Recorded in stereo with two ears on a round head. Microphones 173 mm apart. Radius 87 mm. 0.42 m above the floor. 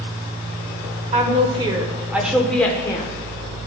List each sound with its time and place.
1.1 s a woman speaking: 35° right (ahead or behind), 1.1 m; by 3.1 s 25° left (ahead or behind), 0.8 m